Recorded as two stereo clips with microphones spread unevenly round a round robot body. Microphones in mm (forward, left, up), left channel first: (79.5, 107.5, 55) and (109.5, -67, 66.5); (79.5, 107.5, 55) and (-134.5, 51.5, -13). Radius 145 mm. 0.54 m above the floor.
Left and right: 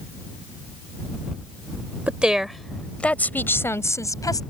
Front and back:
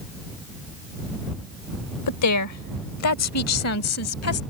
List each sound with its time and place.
2.1 s a woman speaking: 5° left; by 4.4 s 30° left